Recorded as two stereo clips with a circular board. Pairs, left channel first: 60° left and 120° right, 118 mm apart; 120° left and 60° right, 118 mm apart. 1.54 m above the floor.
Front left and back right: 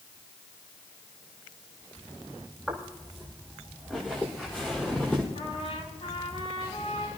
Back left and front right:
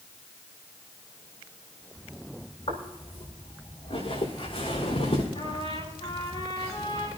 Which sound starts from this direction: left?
A trumpet, at 5.3 s.